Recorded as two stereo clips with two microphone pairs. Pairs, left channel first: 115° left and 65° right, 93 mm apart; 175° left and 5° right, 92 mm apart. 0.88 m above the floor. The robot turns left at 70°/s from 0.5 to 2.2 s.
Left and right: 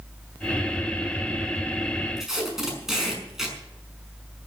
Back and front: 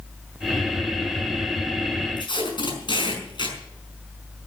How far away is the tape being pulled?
About 5.5 m.